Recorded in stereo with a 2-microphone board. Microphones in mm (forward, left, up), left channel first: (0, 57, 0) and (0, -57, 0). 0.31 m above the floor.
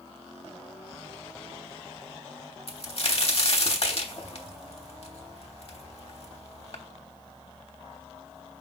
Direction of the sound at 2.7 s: 55° left (ahead or behind).